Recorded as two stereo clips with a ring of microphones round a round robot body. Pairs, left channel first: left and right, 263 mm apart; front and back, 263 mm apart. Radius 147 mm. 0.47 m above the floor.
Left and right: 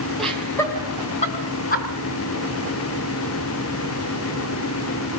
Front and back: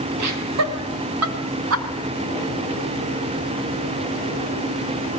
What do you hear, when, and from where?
0.2 s laughter: straight behind, 3 m; by 1.9 s 150° left, 4 m